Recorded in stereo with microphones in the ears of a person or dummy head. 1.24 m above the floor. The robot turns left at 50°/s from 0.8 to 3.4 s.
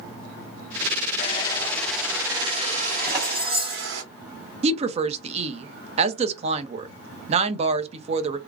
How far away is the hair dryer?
About 0.8 m.